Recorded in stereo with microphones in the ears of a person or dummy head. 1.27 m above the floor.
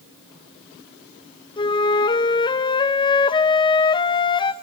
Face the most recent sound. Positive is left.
turn(degrees=25)  # may be behind; listen again after turning